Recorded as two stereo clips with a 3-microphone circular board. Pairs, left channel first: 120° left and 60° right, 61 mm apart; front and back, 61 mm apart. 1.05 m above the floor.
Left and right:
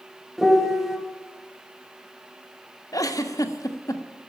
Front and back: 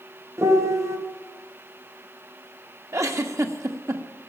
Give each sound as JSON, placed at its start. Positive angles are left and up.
{"t": 0.4, "sound": "a piano", "azimuth_deg": -145, "distance_m": 2.0}
{"t": 2.9, "sound": "a giggle", "azimuth_deg": 140, "distance_m": 1.3}